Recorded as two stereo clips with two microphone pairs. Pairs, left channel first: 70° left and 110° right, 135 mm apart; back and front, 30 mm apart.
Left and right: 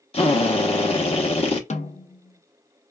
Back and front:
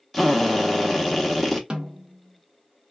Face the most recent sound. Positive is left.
turn(degrees=60)